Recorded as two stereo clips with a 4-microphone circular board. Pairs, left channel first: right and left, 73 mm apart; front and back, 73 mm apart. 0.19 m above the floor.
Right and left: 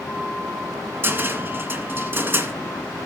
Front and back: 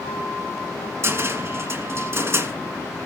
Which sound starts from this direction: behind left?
A cupboard door, at 1.0 s.